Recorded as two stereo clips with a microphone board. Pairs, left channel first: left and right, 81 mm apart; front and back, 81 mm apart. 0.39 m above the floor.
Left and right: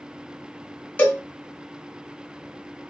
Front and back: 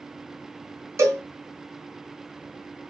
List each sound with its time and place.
1.0 s a cowbell: 150° left, 1.6 m